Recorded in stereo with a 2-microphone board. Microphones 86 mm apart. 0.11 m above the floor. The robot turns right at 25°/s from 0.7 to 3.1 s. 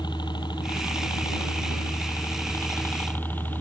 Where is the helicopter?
95° left; by 3.6 s 155° left.